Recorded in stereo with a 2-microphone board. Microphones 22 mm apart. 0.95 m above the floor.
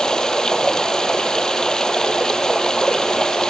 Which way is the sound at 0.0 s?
25° left (ahead or behind).